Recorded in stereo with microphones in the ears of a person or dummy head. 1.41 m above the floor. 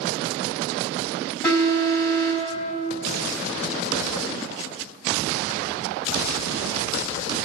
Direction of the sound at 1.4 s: 25° left (ahead or behind).